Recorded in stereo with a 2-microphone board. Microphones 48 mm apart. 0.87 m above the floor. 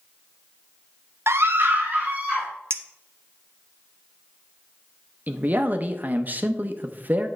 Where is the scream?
60° right (ahead or behind), 0.6 m; by 2.5 s 30° right (ahead or behind), 2 m.